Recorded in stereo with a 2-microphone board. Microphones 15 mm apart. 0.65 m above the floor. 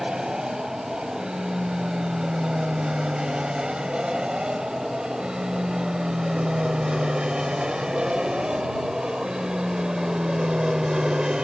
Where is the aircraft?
70° right (ahead or behind); by 11.4 s 55° right (ahead or behind).